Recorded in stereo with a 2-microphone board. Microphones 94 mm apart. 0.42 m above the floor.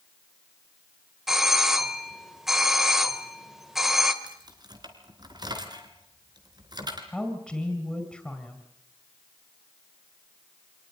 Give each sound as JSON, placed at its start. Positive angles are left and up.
{"t": 1.3, "sound": "a doorbell", "side_deg": -5, "distance_m": 1.8}
{"t": 4.2, "sound": "keys jangling", "side_deg": -45, "distance_m": 3.5}
{"t": 7.1, "sound": "a woman speaking", "side_deg": 5, "distance_m": 3.0}